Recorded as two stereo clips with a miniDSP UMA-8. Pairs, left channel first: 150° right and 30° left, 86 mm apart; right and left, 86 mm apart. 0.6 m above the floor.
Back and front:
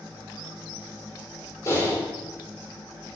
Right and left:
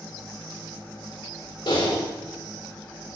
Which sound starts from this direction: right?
Typing on a keyboard, at 1.7 s.